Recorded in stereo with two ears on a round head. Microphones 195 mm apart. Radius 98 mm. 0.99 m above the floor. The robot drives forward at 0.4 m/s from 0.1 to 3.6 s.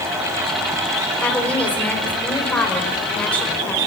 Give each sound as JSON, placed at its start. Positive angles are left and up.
{"t": 1.2, "sound": "a woman speaking", "side_deg": 5, "distance_m": 4.0}